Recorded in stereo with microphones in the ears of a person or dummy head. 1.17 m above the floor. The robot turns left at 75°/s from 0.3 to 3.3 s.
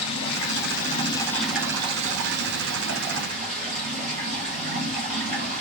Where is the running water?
85° left, 0.8 m; by 5.6 s 140° right, 0.8 m.